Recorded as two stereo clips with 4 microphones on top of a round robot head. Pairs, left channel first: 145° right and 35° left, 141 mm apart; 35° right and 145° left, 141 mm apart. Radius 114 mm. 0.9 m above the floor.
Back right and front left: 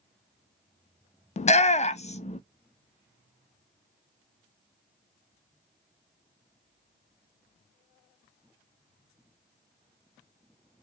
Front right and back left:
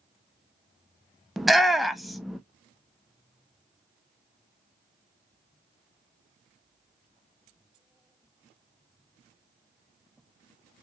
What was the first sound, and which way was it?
A shout, 125° right.